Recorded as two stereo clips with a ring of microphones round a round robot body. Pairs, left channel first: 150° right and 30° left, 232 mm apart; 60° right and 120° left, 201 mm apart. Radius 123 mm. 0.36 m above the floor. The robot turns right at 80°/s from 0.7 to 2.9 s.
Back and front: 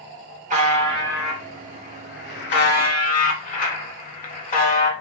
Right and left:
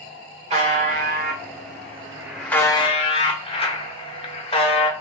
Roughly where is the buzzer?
Left.